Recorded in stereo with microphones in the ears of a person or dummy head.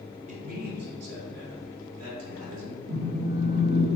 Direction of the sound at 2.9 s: 80° right.